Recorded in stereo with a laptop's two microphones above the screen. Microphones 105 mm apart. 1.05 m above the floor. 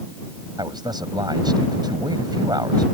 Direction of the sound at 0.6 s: 45° right (ahead or behind).